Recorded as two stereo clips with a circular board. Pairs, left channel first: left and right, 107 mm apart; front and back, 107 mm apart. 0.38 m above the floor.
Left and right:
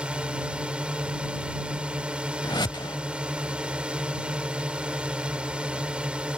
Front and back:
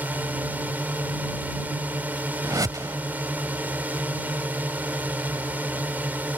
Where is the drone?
150° right.